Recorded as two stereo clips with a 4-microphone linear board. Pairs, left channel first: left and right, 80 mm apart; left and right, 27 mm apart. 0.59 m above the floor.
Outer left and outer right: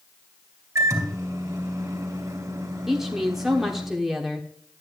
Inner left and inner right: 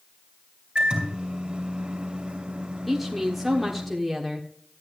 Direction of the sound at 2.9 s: 5° right (ahead or behind).